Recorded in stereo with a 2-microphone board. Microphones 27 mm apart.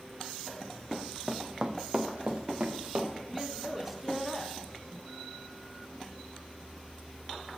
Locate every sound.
0.9 s running footsteps: 10° left (ahead or behind), 1.0 m; by 3.1 s 55° right (ahead or behind), 2.5 m
3.3 s a woman speaking: 10° right (ahead or behind), 1.0 m